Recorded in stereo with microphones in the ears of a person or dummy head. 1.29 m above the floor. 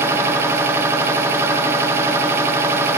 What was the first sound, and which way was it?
A machine running, 15° right (ahead or behind).